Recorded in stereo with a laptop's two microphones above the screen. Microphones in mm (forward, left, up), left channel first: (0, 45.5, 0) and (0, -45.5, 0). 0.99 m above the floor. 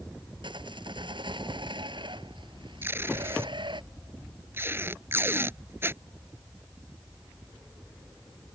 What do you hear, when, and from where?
0.4 s sawing: 70° right (ahead or behind)
2.8 s tape being pulled: 25° right (ahead or behind)